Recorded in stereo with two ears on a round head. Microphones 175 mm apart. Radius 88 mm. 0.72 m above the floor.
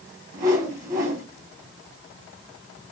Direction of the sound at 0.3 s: 20° right (ahead or behind).